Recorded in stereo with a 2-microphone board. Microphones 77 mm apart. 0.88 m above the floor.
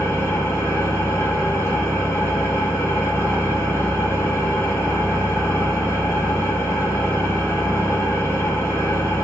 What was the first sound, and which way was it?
An engine running, 35° left (ahead or behind).